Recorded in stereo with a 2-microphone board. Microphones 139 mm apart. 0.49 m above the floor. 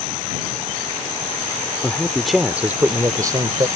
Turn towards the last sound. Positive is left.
turn(degrees=-35)  # may be behind; listen again after turning